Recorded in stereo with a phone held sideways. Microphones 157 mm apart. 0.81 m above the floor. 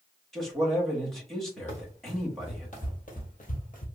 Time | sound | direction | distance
0.3 | a man speaking | 5° left (ahead or behind) | 1.2 m
1.7 | running footsteps | 50° left (ahead or behind) | 2 m